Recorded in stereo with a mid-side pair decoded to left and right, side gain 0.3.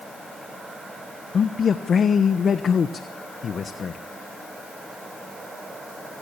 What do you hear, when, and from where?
1.3 s a man speaking: 70° left, 1.2 m